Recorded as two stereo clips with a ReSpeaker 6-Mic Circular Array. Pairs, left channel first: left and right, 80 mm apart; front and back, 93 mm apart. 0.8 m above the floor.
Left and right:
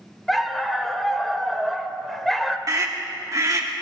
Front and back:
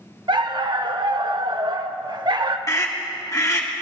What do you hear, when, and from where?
0.3 s a dog barking: straight behind, 0.7 m
2.7 s a scream: 50° right, 2 m